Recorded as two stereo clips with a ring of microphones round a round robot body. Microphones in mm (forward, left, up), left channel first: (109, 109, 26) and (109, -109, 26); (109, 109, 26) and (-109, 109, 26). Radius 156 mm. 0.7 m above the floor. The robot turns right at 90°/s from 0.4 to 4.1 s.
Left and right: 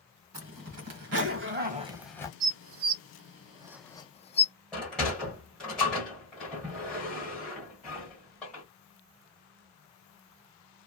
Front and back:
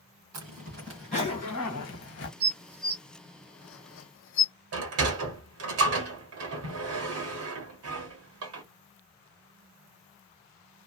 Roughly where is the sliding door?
Behind.